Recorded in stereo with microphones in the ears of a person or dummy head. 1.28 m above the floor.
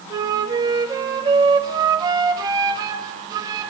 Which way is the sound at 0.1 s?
20° right (ahead or behind).